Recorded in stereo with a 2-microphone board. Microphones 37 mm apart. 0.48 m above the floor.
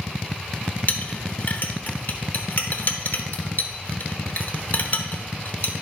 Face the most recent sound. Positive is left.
turn(degrees=50)  # may be behind; listen again after turning